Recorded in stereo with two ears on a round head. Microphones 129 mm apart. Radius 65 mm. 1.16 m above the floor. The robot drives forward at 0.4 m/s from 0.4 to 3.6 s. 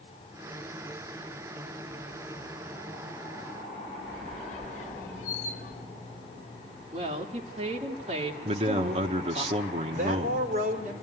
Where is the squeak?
55° left (ahead or behind), 1.2 m.